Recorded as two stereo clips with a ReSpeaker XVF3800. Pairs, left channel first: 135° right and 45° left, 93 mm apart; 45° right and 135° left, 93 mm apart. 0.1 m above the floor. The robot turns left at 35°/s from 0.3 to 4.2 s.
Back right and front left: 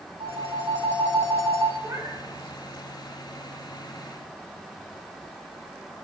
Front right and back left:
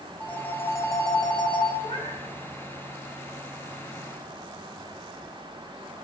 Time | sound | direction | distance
0.2 | a phone ringing | 30° left | 4.5 m
1.8 | a cat meowing | 15° right | 7.5 m